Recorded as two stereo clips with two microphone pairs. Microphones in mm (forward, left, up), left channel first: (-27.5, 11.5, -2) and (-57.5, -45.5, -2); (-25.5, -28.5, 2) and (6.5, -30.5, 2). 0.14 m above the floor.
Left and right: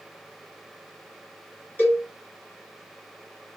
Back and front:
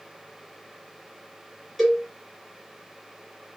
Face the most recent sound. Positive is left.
turn(degrees=90)